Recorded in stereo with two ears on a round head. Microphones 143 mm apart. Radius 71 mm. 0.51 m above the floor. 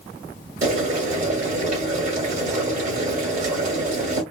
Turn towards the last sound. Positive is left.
turn(degrees=-50)  # may be behind; listen again after turning